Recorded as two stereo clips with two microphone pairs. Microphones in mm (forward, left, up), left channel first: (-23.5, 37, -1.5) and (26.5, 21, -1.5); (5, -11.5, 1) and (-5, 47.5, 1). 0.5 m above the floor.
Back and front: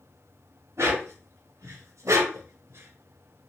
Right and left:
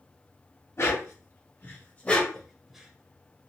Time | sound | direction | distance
0.8 | a dog barking | 40° right | 1.2 m